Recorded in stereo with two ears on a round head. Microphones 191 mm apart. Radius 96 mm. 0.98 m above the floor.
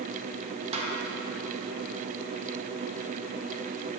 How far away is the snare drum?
About 0.9 m.